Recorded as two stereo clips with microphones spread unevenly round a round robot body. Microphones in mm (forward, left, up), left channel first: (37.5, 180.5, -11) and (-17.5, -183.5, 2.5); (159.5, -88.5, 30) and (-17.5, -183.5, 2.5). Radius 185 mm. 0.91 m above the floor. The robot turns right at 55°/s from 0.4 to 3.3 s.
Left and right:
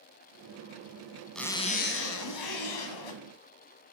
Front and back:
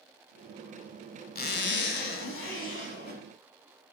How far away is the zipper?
About 1.8 m.